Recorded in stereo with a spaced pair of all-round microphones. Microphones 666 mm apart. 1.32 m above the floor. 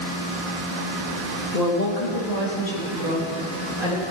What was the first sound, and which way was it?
A woman speaking, 80° left.